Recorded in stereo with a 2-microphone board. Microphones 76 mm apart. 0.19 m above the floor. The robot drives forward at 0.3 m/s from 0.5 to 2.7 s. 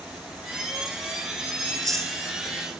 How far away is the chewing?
About 1.7 m.